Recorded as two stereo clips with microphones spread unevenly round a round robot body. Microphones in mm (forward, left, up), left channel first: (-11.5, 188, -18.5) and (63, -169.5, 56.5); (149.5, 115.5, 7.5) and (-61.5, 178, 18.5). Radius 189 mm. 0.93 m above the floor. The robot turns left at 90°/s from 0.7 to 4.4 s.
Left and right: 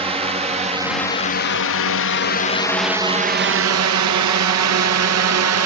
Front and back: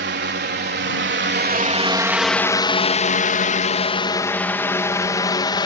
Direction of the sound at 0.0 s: 160° right.